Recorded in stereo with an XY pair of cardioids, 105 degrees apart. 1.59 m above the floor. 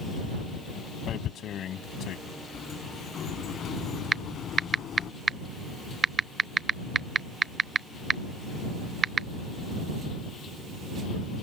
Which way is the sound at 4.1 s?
40° right.